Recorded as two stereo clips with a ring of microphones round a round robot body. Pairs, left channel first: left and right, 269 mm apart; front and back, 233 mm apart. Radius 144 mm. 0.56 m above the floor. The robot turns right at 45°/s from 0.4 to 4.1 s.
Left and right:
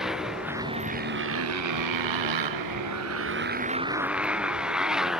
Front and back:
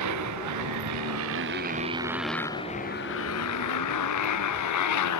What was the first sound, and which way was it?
A motorcycle, straight behind.